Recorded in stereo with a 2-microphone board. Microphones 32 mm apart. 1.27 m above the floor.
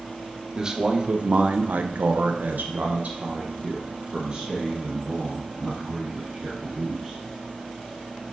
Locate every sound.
0.5 s a man speaking: 20° right (ahead or behind), 1.1 m; by 7.2 s 25° right (ahead or behind), 3 m